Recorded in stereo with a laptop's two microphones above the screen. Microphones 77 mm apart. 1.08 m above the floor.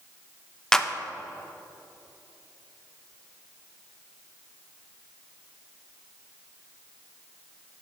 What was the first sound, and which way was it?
A clap, 10° left (ahead or behind).